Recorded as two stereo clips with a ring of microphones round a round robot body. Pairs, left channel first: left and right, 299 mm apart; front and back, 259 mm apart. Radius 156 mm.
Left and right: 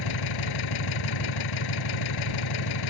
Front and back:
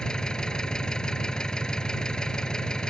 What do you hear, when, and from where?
0.0 s an engine running: 85° left